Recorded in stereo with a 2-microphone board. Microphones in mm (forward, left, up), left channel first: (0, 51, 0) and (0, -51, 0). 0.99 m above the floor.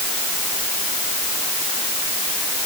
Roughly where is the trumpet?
No trumpet in this recording.